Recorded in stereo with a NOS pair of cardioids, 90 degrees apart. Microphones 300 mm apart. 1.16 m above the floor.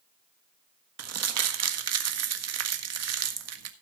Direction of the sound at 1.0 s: 55° right.